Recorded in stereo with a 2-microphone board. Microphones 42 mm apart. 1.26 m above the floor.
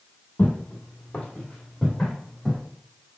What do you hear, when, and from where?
0.4 s footsteps: 40° left (ahead or behind), 1.8 m; by 2.6 s 5° right (ahead or behind), 2 m